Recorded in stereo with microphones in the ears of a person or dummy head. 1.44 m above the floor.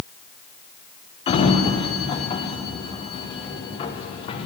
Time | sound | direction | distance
1.3 | a sliding door | 30° left (ahead or behind) | 1.3 m